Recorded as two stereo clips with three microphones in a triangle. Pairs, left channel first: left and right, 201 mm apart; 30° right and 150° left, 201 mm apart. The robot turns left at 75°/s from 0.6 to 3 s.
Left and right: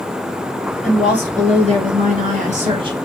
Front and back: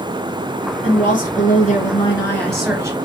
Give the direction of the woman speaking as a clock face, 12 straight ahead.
12 o'clock.